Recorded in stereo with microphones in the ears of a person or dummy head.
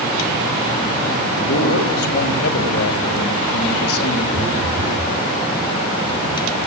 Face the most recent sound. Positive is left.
turn(degrees=-20)  # may be behind; listen again after turning